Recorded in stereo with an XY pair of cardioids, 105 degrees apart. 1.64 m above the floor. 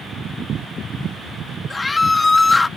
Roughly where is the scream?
Ahead left.